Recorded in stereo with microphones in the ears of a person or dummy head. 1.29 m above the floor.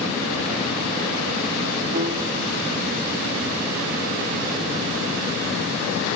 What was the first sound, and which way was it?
A piano, 50° right (ahead or behind).